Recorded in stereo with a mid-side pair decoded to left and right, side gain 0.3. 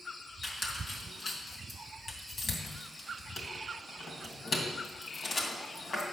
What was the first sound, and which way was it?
A squeak, 55° left.